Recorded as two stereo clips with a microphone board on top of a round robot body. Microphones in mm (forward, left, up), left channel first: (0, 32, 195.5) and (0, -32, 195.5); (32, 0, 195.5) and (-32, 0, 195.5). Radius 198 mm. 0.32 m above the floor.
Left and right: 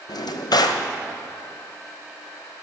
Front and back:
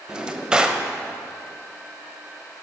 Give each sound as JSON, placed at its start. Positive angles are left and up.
{"t": 0.1, "sound": "a drawer", "azimuth_deg": 100, "distance_m": 1.0}